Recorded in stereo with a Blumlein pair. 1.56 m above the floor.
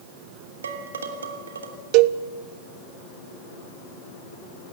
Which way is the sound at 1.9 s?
40° right.